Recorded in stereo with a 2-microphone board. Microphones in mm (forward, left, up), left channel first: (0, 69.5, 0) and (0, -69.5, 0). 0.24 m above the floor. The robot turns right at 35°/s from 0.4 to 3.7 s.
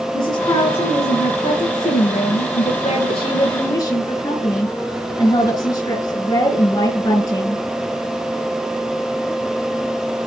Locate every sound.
0.1 s a woman speaking: 30° left, 4 m; by 7.6 s 145° left, 4 m